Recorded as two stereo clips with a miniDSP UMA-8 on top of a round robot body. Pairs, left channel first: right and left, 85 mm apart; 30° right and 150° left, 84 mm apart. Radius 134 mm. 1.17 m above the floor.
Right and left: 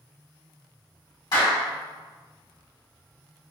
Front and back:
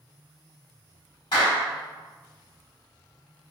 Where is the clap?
55° right, 1.7 m.